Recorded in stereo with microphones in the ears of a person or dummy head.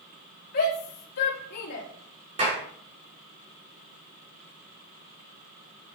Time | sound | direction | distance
0.5 | a shout | 45° left (ahead or behind) | 4 m
2.4 | a clap | 30° right (ahead or behind) | 5 m